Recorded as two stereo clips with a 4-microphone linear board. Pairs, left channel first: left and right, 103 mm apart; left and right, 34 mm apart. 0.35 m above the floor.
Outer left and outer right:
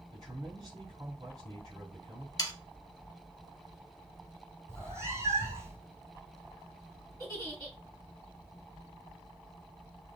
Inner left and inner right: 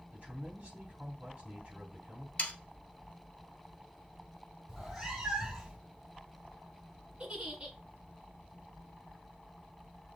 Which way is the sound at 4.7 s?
25° right (ahead or behind).